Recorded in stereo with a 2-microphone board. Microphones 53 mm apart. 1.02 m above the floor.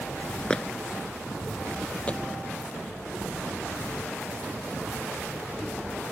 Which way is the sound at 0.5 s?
15° left (ahead or behind).